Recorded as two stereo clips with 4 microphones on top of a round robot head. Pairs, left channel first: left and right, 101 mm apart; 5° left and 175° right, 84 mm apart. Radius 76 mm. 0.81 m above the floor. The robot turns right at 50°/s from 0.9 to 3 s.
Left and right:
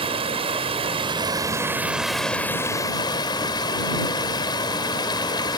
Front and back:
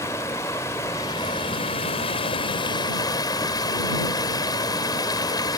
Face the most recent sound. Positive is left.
turn(degrees=45)